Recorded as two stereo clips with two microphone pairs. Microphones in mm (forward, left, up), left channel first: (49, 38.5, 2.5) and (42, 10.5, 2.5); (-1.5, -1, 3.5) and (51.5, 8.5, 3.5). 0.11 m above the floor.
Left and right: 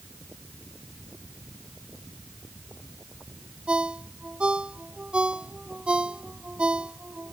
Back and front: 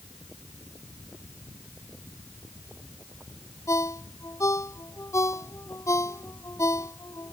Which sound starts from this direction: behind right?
A ringtone, at 3.7 s.